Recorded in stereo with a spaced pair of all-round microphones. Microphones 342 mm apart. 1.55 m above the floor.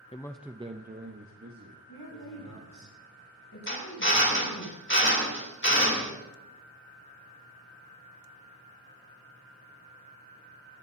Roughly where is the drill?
Left.